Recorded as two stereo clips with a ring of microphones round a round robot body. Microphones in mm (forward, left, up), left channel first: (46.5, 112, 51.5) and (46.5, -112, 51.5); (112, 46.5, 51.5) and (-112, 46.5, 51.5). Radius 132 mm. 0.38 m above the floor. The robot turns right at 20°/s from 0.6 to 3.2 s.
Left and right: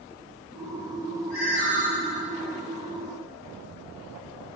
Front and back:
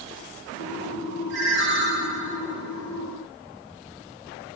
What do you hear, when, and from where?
1.3 s a ringtone: 140° left, 2.5 m; by 1.9 s 155° left, 2.5 m